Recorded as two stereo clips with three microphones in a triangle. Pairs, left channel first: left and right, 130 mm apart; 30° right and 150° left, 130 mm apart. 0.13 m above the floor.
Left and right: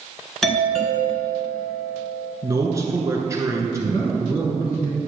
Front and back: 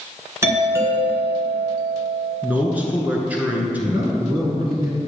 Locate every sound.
0.4 s a doorbell: 175° left, 1.6 m
2.4 s a man speaking: 140° right, 1.3 m
3.9 s a man speaking: 120° left, 1.6 m